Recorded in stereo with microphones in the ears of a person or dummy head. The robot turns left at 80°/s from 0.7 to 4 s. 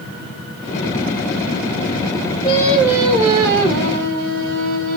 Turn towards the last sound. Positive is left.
turn(degrees=-100)